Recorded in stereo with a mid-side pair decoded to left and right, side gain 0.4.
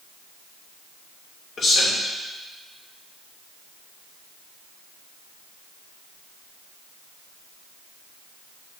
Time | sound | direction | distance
1.6 | a man speaking | 60° left | 3 m